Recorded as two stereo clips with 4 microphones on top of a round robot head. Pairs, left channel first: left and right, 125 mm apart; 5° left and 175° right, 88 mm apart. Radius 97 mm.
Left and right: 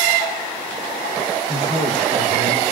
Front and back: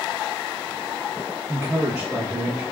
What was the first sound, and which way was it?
A man speaking, 120° right.